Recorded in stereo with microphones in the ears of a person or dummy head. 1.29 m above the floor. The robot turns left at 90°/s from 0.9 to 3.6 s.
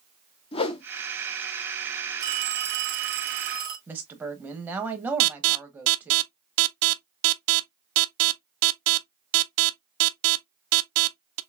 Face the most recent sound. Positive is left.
turn(degrees=-65)  # may be behind; listen again after turning